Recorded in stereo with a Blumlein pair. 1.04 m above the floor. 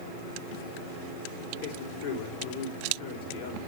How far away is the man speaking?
About 3 m.